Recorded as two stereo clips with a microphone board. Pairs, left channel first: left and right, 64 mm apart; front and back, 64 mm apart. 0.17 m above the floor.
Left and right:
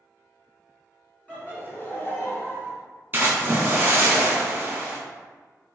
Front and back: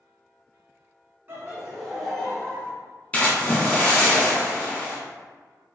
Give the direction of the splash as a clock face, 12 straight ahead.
2 o'clock.